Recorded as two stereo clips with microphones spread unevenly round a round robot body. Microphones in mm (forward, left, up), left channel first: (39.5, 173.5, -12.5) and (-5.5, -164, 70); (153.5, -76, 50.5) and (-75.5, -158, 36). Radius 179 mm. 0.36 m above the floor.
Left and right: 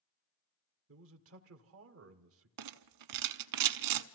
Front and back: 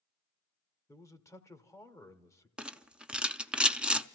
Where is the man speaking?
55° right, 1.2 m.